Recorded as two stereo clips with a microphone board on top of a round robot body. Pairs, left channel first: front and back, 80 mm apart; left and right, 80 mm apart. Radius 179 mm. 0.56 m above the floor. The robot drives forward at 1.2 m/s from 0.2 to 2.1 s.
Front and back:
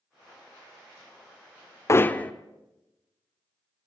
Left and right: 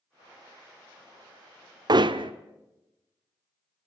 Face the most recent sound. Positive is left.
turn(degrees=-70)